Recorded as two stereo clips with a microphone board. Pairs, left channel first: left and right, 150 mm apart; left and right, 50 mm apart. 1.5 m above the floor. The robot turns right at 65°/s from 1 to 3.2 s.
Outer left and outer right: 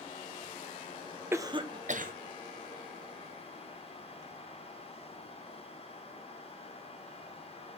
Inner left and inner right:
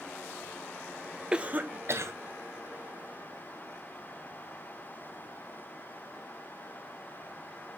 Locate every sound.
1.3 s a cough: 15° right (ahead or behind), 1.1 m; by 2.1 s 70° right (ahead or behind), 1.1 m